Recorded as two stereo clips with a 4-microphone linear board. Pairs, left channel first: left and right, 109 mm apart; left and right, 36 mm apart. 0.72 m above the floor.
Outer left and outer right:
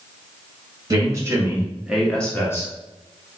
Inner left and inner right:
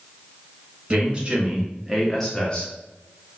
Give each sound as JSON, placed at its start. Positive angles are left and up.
{"t": 0.9, "sound": "a man speaking", "side_deg": -35, "distance_m": 1.1}